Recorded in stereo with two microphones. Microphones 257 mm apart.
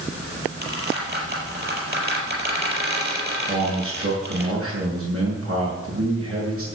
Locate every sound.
0.6 s a squeak: 40° right (ahead or behind), 5 m
3.5 s a man speaking: 60° right (ahead or behind), 6.5 m